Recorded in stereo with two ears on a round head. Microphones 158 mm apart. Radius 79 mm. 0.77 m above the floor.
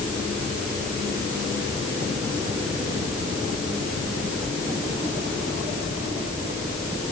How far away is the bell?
No bell in this recording.